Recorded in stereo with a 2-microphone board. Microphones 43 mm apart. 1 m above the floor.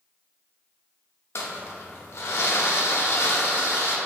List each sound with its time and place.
1.4 s crumpling: 80° left, 0.7 m